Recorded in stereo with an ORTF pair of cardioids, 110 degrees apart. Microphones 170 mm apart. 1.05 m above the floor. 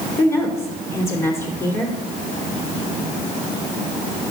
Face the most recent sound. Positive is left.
turn(degrees=15)